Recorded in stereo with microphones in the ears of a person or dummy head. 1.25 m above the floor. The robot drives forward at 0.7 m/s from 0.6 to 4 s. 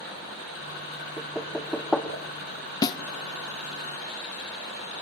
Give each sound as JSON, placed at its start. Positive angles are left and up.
{"t": 1.2, "sound": "knocking", "side_deg": 5, "distance_m": 2.0}
{"t": 2.8, "sound": "a snare drum", "side_deg": 25, "distance_m": 0.7}